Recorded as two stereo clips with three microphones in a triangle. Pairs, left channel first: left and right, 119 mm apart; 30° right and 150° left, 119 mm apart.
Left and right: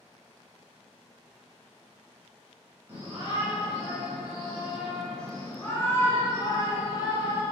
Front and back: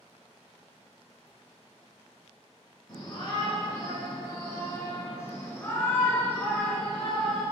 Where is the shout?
35° right, 2.5 m; by 7.4 s 55° left, 2.5 m.